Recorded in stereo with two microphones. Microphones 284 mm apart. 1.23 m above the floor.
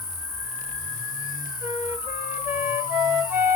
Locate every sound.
0.0 s an insect: 10° left (ahead or behind), 2.5 m
1.6 s a flute: 5° right (ahead or behind), 1.2 m